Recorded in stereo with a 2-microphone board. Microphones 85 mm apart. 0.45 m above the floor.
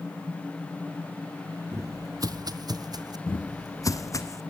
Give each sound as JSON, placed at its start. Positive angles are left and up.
{"t": 1.7, "sound": "footsteps", "side_deg": -35, "distance_m": 0.5}
{"t": 3.3, "sound": "footsteps", "side_deg": 45, "distance_m": 0.6}